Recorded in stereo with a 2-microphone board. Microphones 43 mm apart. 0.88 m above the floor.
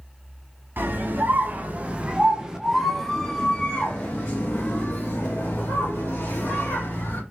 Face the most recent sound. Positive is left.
turn(degrees=50)  # may be behind; listen again after turning